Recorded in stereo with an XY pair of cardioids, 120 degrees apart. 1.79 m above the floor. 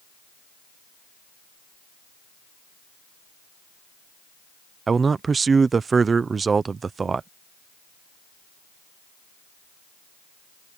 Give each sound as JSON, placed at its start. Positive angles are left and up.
{"t": 4.9, "sound": "a man speaking", "azimuth_deg": -30}